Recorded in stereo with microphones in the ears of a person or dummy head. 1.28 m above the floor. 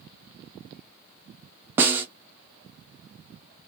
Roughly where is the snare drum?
Centre.